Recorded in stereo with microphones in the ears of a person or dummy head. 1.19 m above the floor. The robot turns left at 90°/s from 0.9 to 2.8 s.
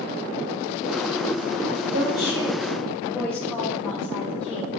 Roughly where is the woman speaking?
Right.